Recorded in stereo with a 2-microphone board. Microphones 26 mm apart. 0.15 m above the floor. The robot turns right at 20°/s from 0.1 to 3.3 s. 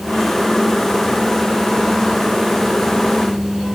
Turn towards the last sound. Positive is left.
No sound to turn to.